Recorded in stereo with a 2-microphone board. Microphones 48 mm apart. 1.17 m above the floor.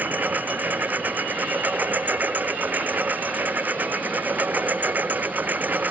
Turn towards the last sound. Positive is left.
turn(degrees=-40)  # may be behind; listen again after turning